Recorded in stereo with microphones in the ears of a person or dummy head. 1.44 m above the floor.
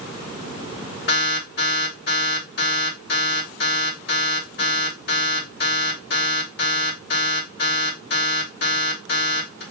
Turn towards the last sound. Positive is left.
turn(degrees=50)  # may be behind; listen again after turning